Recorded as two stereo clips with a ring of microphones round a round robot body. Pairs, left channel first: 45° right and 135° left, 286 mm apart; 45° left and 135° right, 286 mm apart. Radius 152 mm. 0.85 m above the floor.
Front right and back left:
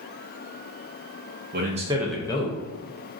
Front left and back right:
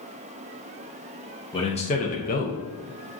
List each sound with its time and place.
1.5 s a man speaking: 110° left, 0.6 m; by 2.6 s straight ahead, 0.6 m